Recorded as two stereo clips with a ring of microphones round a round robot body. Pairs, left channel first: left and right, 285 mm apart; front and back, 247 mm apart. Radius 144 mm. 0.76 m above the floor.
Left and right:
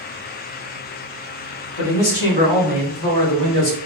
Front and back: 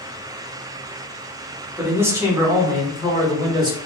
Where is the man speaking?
100° left, 1.9 m; by 3.8 s 110° left, 3 m.